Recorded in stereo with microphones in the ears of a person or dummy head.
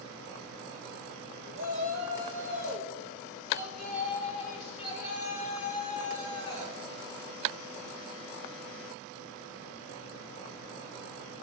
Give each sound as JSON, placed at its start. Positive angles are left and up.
{"t": 1.6, "sound": "a shout", "side_deg": 50, "distance_m": 4.0}